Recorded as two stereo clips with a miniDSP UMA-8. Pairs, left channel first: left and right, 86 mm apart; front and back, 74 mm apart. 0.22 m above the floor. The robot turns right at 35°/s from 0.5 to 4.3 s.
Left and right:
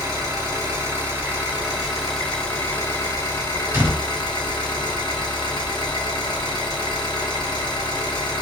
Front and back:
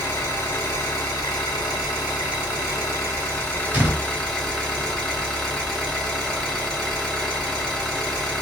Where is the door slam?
135° right, 1.0 m; by 4.0 s 125° right, 1.0 m.